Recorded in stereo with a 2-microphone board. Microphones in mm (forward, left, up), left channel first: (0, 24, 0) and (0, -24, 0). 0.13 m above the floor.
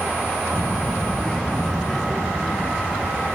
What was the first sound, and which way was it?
A child speaking, 40° left (ahead or behind).